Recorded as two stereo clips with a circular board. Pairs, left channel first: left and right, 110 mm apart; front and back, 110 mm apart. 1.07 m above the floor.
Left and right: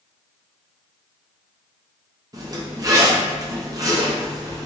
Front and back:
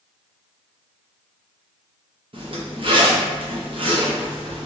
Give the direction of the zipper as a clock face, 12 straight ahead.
5 o'clock.